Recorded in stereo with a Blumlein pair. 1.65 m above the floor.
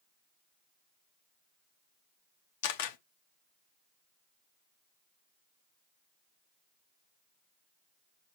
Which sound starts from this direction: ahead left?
A camera shutter, at 2.6 s.